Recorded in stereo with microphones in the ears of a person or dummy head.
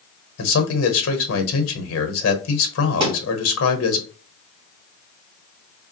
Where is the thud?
25° right (ahead or behind), 1.8 m.